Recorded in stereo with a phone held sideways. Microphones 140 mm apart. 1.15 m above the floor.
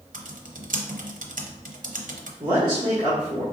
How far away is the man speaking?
About 1.5 m.